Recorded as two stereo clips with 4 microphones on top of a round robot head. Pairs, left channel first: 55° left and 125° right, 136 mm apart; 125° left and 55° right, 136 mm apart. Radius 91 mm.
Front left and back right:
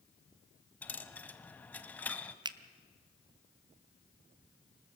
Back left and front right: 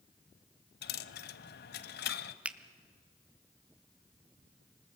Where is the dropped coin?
135° left, 0.6 m.